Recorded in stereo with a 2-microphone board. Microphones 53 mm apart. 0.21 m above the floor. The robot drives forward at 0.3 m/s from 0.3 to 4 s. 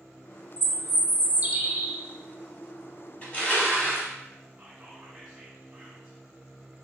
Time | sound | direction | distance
0.6 | a bird | 40° right (ahead or behind) | 0.5 m
3.2 | crushing | 30° left (ahead or behind) | 1.1 m
4.6 | whispering | 15° right (ahead or behind) | 1.4 m